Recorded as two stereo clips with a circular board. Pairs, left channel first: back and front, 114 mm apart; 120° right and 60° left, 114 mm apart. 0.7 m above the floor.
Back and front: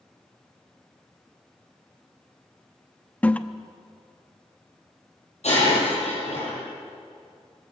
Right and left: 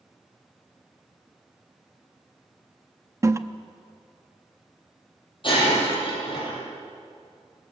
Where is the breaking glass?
165° right, 9 m.